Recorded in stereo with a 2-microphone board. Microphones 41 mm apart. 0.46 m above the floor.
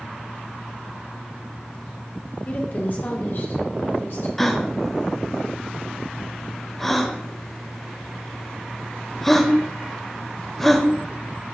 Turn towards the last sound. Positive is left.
turn(degrees=5)  # may be behind; listen again after turning